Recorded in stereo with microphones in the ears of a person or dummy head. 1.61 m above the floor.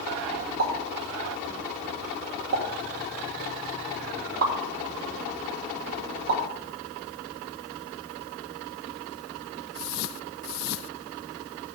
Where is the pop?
65° right (ahead or behind), 1.8 m.